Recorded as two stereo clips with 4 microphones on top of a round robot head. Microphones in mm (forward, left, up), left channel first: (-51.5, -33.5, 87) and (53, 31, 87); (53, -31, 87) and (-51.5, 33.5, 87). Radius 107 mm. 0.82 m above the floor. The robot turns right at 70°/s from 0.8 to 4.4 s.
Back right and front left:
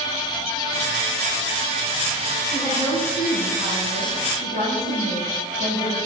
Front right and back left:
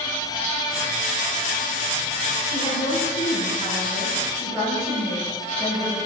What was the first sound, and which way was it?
A woman speaking, 75° right.